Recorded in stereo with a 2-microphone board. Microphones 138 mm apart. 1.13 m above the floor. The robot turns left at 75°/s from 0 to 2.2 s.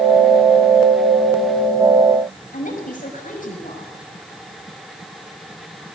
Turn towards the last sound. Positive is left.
turn(degrees=65)  # may be behind; listen again after turning